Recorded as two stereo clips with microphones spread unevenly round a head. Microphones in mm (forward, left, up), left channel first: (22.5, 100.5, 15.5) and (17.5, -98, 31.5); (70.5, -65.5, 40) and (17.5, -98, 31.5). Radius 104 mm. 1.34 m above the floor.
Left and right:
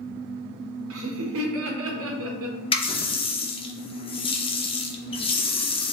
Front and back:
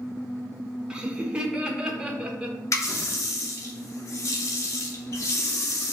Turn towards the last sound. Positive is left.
turn(degrees=25)